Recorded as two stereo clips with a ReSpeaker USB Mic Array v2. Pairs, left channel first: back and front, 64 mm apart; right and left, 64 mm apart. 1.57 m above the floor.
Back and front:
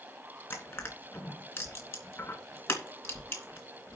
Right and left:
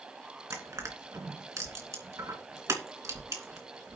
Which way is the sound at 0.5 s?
130° left.